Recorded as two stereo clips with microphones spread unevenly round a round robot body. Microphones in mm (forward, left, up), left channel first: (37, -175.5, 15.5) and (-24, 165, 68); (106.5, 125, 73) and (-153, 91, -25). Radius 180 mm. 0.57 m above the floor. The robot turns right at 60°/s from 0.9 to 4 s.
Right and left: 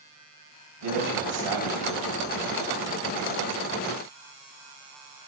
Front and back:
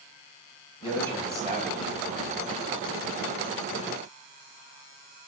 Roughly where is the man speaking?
Left.